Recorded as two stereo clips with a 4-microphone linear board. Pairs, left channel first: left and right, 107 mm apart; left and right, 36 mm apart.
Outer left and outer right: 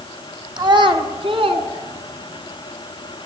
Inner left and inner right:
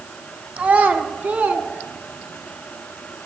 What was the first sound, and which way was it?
A child speaking, 40° right (ahead or behind).